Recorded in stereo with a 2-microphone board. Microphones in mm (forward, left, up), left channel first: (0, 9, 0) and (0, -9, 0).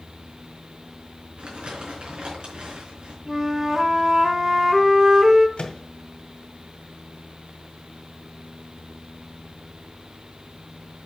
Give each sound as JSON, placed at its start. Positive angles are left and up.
{"t": 1.4, "sound": "crumpling", "side_deg": -70, "distance_m": 4.5}
{"t": 3.3, "sound": "a flute", "side_deg": -20, "distance_m": 1.1}
{"t": 5.6, "sound": "a microwave", "side_deg": 60, "distance_m": 1.7}